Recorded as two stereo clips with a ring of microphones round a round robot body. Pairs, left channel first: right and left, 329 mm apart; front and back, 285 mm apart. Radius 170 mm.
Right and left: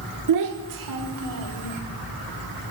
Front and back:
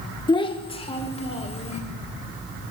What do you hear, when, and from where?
0.3 s a child speaking: 70° left, 1.1 m